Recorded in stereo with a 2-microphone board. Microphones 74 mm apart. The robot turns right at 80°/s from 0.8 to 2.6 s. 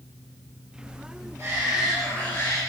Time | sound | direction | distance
1.4 | a shout | 45° right | 4.5 m